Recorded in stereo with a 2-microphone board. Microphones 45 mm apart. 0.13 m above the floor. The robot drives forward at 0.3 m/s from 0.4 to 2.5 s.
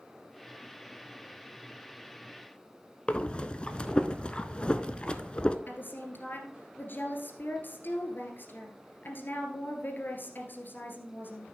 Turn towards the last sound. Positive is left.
turn(degrees=50)  # may be behind; listen again after turning